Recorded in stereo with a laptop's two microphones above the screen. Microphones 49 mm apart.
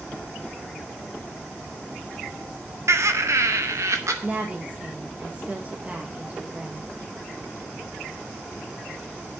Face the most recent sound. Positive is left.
turn(degrees=-25)  # may be behind; listen again after turning